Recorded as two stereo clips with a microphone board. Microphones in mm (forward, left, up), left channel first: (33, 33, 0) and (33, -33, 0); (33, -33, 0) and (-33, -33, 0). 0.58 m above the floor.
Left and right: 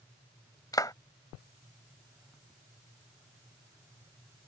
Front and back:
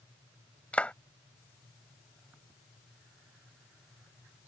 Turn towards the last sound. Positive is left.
turn(degrees=70)